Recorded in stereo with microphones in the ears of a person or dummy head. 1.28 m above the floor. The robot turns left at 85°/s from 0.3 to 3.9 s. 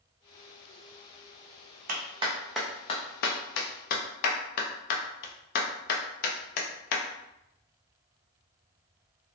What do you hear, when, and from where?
1.9 s a clap: 45° right (ahead or behind), 0.5 m; by 7.0 s 55° left (ahead or behind), 0.5 m